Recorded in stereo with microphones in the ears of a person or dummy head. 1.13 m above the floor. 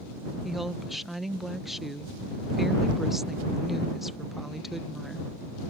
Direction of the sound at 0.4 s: Centre (ahead or behind).